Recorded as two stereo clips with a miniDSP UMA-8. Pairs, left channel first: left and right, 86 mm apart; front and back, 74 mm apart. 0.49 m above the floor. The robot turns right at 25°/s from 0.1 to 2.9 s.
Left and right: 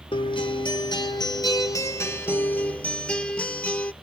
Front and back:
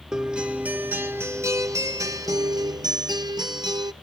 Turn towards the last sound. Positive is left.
turn(degrees=165)